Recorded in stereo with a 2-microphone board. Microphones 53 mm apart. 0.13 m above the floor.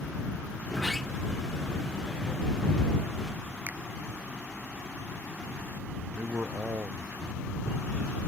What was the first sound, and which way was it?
A sliding door, 5° left (ahead or behind).